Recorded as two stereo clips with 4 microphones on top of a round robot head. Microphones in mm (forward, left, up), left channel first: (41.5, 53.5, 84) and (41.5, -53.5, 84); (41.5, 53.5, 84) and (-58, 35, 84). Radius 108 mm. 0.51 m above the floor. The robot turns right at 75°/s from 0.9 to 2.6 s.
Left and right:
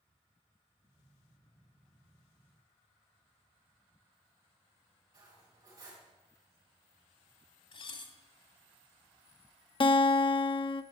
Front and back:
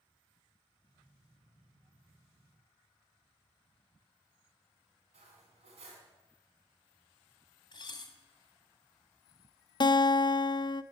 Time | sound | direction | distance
5.1 | cutlery clinking | 150° right | 3 m
7.7 | dishes clattering | 55° left | 1.4 m
9.8 | a guitar | 50° left | 0.6 m